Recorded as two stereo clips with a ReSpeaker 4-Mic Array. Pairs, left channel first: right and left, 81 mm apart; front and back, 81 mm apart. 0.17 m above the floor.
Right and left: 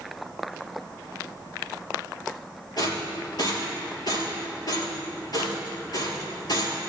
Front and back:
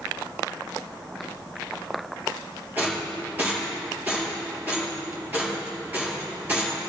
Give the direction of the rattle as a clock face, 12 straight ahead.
4 o'clock.